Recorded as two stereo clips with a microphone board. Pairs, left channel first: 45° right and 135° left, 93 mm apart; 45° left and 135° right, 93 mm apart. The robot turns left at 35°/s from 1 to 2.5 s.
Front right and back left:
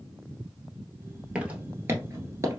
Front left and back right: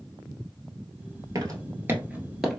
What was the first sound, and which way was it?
Footsteps, 150° right.